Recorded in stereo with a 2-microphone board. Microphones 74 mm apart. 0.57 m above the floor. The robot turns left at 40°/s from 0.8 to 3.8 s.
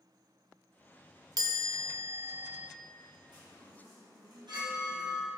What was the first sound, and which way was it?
A chime, 105° right.